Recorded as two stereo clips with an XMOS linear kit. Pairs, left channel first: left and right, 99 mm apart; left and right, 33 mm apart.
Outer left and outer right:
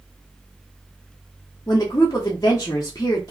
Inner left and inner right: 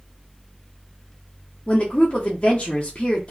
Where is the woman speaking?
35° left (ahead or behind), 0.6 m.